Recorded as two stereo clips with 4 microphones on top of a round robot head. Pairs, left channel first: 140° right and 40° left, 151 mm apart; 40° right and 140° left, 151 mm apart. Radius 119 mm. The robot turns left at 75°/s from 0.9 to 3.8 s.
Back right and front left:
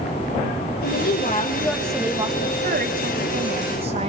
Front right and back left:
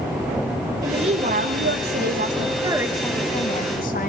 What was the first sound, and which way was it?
A woman speaking, 155° right.